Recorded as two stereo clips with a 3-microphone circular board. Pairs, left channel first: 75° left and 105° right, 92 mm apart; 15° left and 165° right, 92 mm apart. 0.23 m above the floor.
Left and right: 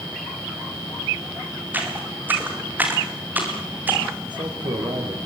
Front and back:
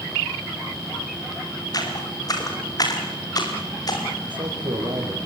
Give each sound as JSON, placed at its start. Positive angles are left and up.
{"t": 1.7, "sound": "footsteps", "azimuth_deg": -35, "distance_m": 7.5}
{"t": 4.2, "sound": "a man speaking", "azimuth_deg": -135, "distance_m": 8.5}